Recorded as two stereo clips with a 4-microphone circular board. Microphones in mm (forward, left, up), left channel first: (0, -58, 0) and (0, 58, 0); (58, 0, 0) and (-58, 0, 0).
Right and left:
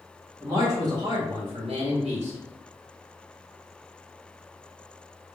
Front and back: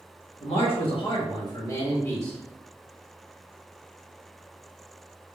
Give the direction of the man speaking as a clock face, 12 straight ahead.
11 o'clock.